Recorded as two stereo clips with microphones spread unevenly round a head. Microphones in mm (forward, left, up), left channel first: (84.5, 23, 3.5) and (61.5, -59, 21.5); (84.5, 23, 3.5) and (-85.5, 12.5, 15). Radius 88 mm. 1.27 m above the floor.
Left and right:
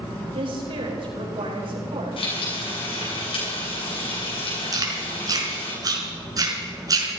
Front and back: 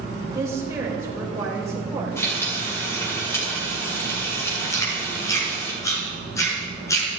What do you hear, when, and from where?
0.3 s a woman speaking: 100° right, 4.5 m
2.2 s frying: 80° left, 7 m
4.7 s chewing: 70° right, 4.5 m